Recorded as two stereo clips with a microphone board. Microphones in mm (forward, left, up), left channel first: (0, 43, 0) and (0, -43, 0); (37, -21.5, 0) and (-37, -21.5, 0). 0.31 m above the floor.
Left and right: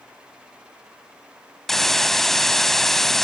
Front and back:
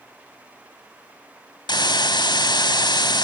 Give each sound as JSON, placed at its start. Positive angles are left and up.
{"t": 1.7, "sound": "a hiss", "azimuth_deg": 5, "distance_m": 0.6}